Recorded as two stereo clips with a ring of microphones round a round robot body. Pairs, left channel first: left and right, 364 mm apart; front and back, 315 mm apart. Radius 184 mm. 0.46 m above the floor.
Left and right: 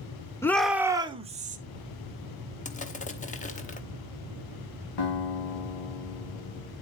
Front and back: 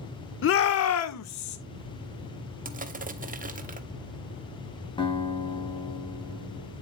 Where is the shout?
10° left, 1.0 m; by 1.6 s 25° right, 1.5 m.